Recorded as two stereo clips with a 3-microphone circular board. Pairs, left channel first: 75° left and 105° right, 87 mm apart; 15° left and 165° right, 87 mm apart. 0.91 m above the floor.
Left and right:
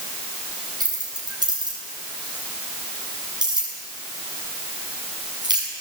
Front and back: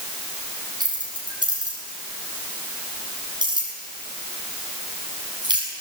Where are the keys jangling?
140° right, 7 m.